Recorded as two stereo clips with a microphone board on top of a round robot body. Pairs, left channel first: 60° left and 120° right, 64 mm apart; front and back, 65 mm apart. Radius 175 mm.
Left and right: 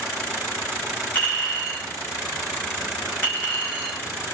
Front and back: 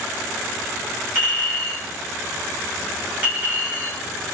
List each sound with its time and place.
1.1 s a clink: 120° left, 2.5 m